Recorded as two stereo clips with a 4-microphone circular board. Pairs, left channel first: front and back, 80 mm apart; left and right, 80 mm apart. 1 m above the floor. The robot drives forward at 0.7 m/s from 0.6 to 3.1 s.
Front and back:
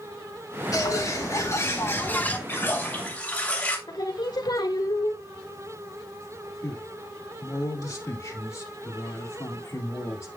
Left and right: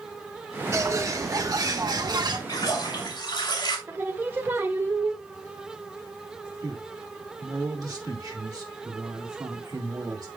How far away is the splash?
About 2.5 m.